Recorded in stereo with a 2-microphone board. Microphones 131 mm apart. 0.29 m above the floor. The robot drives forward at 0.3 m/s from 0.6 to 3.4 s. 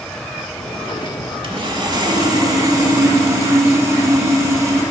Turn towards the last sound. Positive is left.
turn(degrees=-25)  # may be behind; listen again after turning